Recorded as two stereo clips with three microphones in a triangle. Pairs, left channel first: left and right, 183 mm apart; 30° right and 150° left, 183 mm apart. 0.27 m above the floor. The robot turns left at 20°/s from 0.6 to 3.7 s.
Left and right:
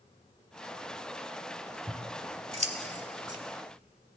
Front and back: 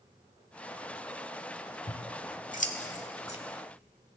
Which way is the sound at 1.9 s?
35° right.